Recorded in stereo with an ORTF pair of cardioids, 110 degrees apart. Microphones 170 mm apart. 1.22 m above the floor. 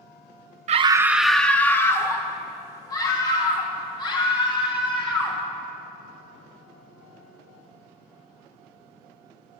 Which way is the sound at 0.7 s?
45° right.